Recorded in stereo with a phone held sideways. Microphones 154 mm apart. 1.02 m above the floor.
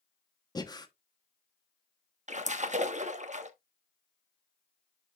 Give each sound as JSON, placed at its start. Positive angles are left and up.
{"t": 0.6, "sound": "breathing", "side_deg": 25, "distance_m": 1.1}
{"t": 2.3, "sound": "a splash", "side_deg": -50, "distance_m": 1.1}